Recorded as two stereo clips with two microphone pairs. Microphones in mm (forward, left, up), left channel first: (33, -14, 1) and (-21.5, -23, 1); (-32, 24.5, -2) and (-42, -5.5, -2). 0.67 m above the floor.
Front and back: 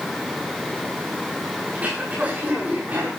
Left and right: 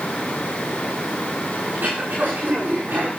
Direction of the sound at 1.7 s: 110° right.